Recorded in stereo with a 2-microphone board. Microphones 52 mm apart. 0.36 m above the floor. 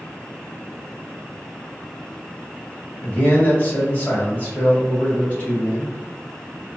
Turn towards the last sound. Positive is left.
turn(degrees=30)  # may be behind; listen again after turning